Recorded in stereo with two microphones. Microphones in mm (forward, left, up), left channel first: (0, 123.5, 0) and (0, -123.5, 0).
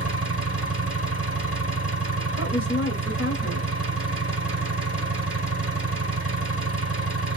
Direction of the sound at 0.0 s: 55° right (ahead or behind).